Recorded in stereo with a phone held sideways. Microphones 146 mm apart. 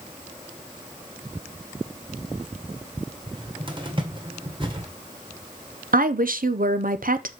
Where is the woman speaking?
70° right (ahead or behind), 0.7 m.